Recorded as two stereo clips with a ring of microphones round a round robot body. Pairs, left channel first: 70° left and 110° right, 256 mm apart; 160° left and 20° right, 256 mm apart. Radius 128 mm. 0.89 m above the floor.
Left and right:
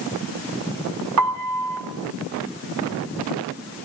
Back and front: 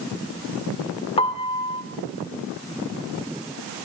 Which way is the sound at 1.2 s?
135° right.